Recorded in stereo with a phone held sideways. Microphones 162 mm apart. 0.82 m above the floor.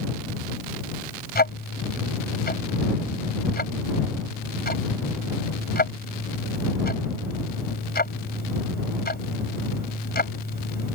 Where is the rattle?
I don't hear a rattle.